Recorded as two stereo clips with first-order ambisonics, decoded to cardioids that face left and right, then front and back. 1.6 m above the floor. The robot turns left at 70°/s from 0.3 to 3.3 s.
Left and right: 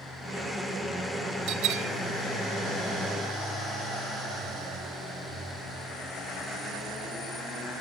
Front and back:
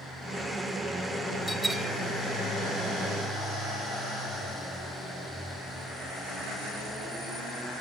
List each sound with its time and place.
1.5 s a bell: 75° right, 0.9 m; by 1.9 s 105° right, 0.9 m